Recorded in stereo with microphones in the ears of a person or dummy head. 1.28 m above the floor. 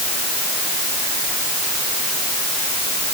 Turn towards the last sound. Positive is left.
No sound to turn to.